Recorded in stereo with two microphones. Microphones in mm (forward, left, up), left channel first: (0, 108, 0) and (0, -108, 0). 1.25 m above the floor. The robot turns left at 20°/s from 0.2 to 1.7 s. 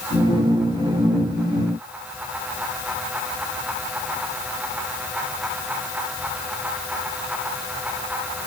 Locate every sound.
Only background noise.